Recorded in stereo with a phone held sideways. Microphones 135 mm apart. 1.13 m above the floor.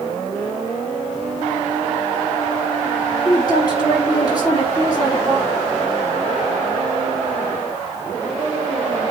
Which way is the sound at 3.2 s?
30° left (ahead or behind).